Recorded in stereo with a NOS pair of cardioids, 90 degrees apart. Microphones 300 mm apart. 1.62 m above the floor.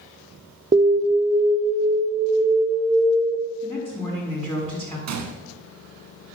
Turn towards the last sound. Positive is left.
turn(degrees=-60)